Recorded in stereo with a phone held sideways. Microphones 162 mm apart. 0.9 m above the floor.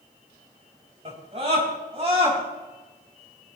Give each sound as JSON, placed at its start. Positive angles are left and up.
{"t": 1.1, "sound": "a scream", "side_deg": -40, "distance_m": 4.0}